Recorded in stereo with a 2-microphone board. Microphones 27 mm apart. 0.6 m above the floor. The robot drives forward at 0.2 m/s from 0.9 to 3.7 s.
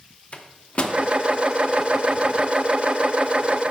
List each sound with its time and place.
0.3 s a microwave: 45° left (ahead or behind), 0.6 m